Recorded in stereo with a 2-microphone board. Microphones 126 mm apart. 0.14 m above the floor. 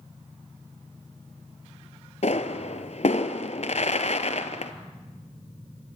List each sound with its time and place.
2.2 s a pop: 60° left (ahead or behind), 1.1 m